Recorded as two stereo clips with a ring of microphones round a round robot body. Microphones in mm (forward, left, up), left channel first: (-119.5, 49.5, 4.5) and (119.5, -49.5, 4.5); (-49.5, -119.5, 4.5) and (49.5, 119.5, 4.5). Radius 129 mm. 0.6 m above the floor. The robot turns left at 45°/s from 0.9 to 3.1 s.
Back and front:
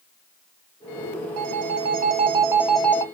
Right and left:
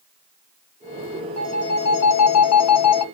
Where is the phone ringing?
50° right, 0.5 m; by 3.0 s 125° right, 0.5 m.